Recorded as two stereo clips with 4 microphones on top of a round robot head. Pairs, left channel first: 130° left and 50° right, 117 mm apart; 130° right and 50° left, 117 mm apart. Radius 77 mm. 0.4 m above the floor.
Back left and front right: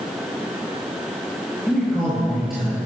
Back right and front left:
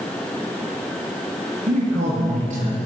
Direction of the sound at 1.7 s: 40° left.